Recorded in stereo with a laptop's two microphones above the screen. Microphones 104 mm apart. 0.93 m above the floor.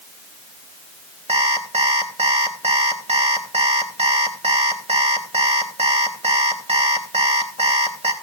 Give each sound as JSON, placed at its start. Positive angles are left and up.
{"t": 1.3, "sound": "an alarm clock", "side_deg": -80, "distance_m": 3.0}